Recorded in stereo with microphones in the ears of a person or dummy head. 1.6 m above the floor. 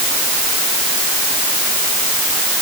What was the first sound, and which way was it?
Only background noise.